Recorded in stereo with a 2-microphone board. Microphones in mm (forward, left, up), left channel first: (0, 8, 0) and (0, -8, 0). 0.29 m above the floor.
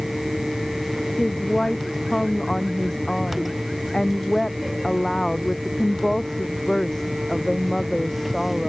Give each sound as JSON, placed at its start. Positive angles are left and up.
{"t": 1.2, "sound": "a woman speaking", "side_deg": 40}